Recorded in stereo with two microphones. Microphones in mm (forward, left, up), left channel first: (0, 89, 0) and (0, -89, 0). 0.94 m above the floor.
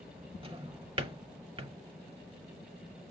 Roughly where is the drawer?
Right.